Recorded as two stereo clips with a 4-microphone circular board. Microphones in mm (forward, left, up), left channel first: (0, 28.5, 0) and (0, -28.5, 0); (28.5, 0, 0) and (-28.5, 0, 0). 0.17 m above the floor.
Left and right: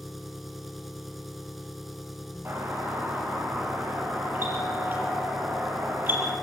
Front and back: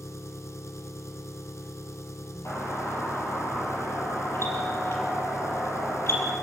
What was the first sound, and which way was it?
An engine running, straight ahead.